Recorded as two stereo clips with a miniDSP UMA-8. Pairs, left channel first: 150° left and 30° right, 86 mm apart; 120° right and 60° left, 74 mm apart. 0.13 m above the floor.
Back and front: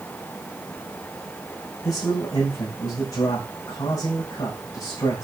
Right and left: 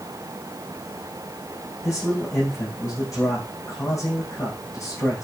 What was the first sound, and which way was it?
A man speaking, 165° right.